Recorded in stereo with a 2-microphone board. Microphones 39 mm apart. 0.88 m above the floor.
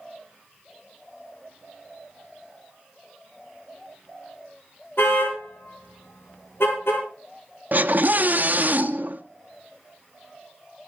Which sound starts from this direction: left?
A car horn, at 5.0 s.